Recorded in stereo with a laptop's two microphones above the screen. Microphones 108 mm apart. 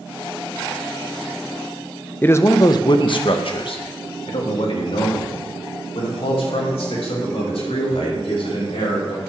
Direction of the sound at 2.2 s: 20° left (ahead or behind).